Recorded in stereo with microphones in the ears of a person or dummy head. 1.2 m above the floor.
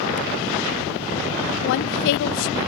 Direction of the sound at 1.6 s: 75° left (ahead or behind).